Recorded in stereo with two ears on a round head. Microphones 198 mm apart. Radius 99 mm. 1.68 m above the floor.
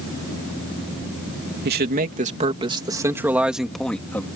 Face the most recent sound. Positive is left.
turn(degrees=10)  # may be behind; listen again after turning